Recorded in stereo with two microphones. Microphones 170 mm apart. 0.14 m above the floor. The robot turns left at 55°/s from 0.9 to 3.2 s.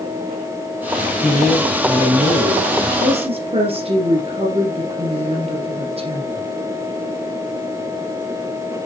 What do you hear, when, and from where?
1.2 s a man speaking: 10° left, 3 m; by 2.9 s 80° right, 3 m
3.0 s a woman speaking: 45° right (ahead or behind), 3 m; by 6.5 s 35° right (ahead or behind), 3 m